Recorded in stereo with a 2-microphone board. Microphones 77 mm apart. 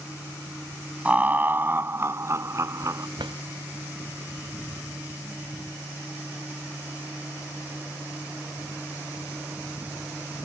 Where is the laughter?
20° right (ahead or behind); by 3.1 s 45° right (ahead or behind).